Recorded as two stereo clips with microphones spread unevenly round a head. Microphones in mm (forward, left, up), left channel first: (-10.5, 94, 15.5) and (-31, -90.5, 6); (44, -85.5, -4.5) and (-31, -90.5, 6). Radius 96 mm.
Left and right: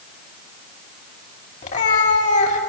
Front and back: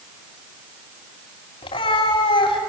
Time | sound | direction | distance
1.6 | a cat meowing | 30° left | 2.5 m